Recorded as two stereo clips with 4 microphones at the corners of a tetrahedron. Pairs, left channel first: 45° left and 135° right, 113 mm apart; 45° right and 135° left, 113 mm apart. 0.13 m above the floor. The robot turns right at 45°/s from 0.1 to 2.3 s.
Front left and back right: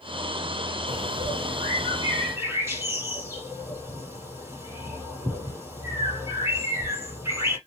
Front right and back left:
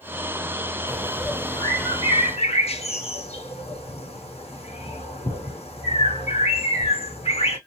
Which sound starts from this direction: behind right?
A bird, at 0.9 s.